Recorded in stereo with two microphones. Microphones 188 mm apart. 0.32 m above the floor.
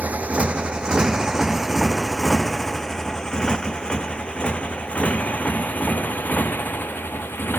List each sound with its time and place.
0.0 s a motorcycle: 5° right (ahead or behind); by 7.6 s 10° left (ahead or behind)